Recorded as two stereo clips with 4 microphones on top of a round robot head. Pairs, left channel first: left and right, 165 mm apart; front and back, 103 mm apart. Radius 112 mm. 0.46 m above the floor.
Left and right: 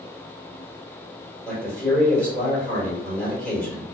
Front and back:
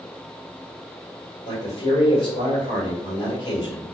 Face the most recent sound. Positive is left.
turn(degrees=10)